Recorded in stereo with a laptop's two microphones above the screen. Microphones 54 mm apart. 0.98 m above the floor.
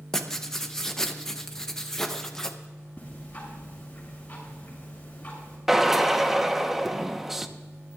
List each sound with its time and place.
0.1 s writing: 10° left (ahead or behind), 0.9 m
3.0 s ticking: 25° left (ahead or behind), 7 m
5.7 s a drill: 5° right (ahead or behind), 0.9 m